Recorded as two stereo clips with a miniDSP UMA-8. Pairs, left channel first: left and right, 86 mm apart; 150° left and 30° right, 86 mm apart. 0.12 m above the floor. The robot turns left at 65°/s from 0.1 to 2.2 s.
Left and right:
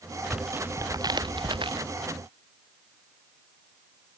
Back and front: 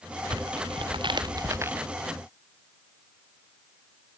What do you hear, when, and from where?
0.3 s tearing paper: 5° right; by 1.8 s 100° right